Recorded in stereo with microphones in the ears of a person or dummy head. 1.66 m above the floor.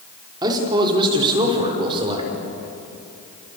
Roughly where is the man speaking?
Right.